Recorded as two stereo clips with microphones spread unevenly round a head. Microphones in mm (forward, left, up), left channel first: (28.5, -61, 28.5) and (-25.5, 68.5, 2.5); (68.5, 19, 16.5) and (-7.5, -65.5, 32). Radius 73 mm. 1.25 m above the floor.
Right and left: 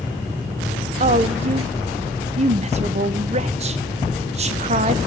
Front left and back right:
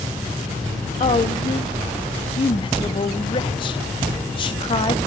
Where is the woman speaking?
85° left, 1.1 m.